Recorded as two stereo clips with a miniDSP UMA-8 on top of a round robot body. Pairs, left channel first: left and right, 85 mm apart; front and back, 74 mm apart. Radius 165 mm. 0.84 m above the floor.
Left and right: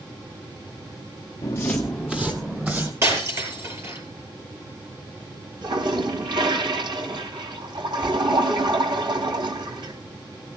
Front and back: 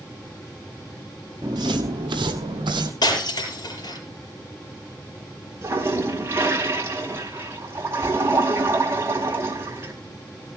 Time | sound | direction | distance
1.4 | footsteps | 135° left | 0.9 m
3.0 | breaking glass | 30° right | 7.5 m
5.6 | a toilet flushing | 120° right | 3.5 m